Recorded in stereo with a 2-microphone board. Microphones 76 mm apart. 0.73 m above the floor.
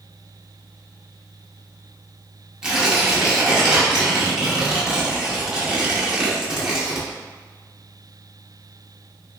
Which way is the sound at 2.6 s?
10° right (ahead or behind).